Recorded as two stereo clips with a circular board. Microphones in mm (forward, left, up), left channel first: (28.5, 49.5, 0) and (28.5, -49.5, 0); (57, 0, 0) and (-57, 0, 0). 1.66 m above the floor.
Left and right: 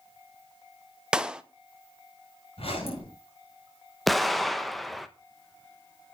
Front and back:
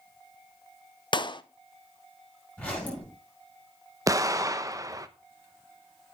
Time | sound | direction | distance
1.1 | a clap | 10° right | 0.7 m
2.6 | a zipper | 80° left | 7.5 m
4.1 | an explosion | straight behind | 0.8 m